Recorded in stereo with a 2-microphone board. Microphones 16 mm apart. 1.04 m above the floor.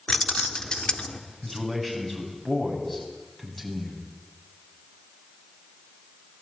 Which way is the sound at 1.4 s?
20° left (ahead or behind).